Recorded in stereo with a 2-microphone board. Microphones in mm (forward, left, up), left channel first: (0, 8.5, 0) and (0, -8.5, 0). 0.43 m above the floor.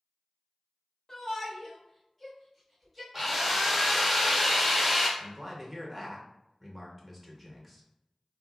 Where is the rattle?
I don't hear a rattle.